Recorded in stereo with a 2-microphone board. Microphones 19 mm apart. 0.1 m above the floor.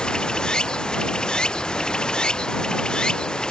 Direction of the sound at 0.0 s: 45° left (ahead or behind).